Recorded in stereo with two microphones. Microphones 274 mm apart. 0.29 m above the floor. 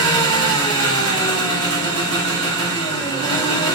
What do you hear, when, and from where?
0.0 s an engine running: 15° left (ahead or behind), 5 m